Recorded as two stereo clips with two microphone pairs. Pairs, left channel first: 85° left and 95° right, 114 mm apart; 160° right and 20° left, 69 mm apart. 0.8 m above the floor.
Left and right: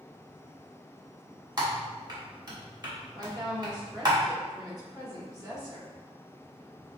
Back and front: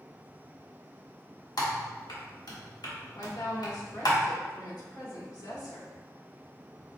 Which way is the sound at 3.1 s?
155° right.